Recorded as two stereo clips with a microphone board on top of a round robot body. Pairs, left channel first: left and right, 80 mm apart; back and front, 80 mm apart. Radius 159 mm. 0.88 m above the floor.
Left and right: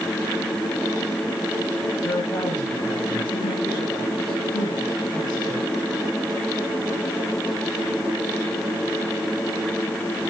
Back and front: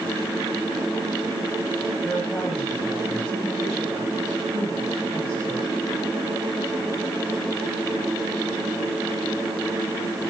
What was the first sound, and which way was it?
A man speaking, 90° left.